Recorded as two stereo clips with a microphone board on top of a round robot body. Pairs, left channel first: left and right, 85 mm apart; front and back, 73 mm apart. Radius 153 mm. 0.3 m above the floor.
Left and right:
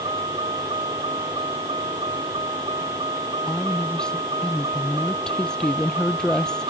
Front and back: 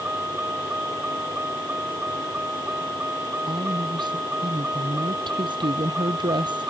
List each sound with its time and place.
0.0 s a vehicle: 115° right
3.5 s a woman speaking: 170° left